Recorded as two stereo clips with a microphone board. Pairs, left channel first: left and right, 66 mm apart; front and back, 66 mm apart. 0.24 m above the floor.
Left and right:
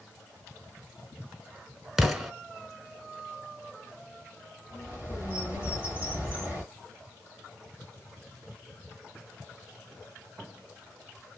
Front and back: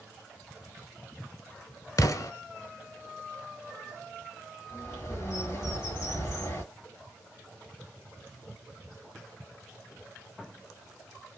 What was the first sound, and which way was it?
An explosion, 5° right.